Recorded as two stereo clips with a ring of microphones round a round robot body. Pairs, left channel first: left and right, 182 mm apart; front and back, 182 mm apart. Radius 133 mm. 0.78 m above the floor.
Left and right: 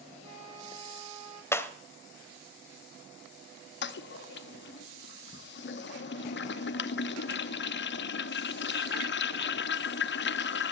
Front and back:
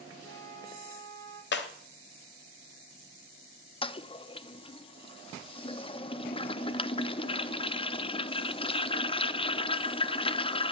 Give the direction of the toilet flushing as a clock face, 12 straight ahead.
10 o'clock.